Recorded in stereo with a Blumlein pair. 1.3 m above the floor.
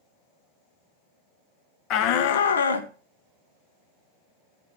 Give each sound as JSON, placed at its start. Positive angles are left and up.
{"t": 1.9, "sound": "a shout", "azimuth_deg": 35, "distance_m": 0.9}